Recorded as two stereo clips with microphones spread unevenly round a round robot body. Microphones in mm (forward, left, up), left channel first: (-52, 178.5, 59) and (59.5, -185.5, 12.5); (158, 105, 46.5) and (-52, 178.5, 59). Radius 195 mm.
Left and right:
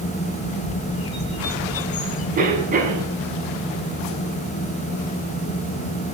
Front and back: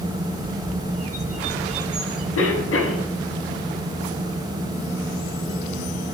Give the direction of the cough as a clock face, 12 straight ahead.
12 o'clock.